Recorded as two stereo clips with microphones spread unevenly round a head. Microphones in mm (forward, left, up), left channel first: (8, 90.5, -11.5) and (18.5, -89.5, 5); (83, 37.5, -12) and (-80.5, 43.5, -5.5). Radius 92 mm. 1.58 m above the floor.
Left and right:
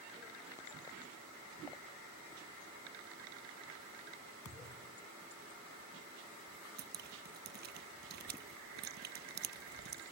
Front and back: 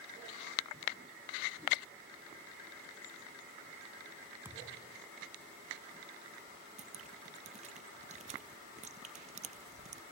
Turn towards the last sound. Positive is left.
turn(degrees=-125)